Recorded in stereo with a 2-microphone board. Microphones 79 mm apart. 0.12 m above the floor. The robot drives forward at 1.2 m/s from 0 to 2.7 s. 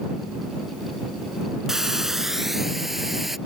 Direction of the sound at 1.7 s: 5° right (ahead or behind).